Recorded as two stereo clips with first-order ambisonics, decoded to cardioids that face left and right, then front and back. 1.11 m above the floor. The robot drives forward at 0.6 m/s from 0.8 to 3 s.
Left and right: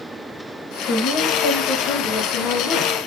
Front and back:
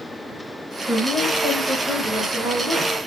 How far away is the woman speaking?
About 3 m.